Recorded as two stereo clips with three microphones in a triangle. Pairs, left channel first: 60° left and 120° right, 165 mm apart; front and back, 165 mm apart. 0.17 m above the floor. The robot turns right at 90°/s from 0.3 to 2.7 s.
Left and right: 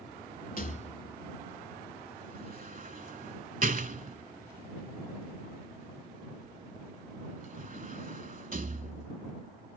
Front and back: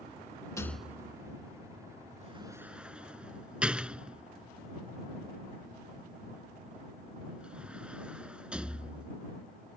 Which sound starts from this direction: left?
A rattle, at 0.6 s.